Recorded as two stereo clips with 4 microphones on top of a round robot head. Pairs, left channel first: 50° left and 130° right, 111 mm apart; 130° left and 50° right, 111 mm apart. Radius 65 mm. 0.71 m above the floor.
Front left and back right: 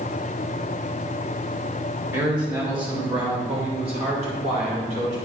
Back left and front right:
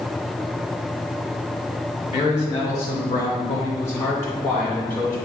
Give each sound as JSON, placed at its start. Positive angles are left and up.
{"t": 2.1, "sound": "a man speaking", "azimuth_deg": 175, "distance_m": 2.5}